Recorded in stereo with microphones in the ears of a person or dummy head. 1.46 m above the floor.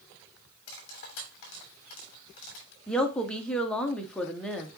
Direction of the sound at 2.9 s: 5° right (ahead or behind).